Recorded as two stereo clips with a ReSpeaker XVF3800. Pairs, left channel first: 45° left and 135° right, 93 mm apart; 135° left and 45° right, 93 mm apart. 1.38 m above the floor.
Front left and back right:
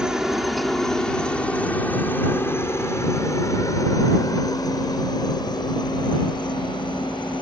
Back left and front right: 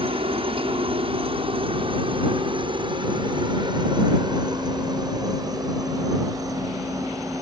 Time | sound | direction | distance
0.0 | a helicopter | 50° right | ?